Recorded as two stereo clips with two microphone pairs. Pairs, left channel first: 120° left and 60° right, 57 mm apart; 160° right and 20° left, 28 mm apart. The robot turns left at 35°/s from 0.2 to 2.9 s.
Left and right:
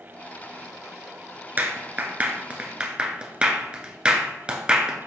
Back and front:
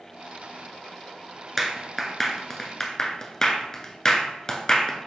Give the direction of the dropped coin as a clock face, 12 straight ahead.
I don't hear a dropped coin.